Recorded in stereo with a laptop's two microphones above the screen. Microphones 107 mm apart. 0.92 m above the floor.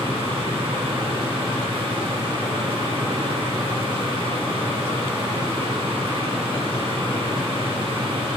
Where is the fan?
70° right (ahead or behind), 4 m.